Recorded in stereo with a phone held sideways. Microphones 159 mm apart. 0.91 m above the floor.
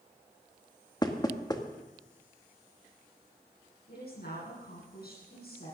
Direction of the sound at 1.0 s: 25° left (ahead or behind).